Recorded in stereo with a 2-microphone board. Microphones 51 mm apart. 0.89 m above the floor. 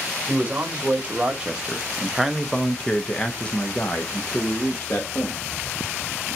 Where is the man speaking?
25° right (ahead or behind), 1.4 m; by 5.4 s 40° left (ahead or behind), 1.4 m.